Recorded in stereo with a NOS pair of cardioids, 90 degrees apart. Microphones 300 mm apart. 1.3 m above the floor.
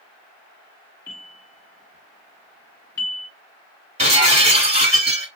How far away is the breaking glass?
About 2.5 m.